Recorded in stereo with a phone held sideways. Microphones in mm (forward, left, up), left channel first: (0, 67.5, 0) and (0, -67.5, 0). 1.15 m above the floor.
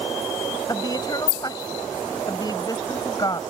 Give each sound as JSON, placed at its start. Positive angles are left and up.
{"t": 0.7, "sound": "a woman speaking", "side_deg": 30}